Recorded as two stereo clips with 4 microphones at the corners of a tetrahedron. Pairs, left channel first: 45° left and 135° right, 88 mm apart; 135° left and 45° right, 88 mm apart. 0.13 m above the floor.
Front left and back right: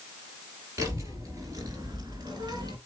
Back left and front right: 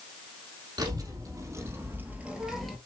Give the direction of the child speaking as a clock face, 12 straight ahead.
3 o'clock.